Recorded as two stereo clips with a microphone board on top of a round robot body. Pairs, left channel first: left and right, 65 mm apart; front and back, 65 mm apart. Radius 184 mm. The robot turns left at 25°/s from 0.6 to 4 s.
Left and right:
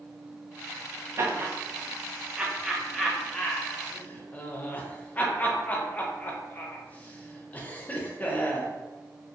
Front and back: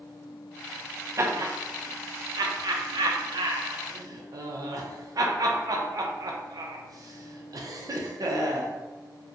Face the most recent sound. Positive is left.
turn(degrees=155)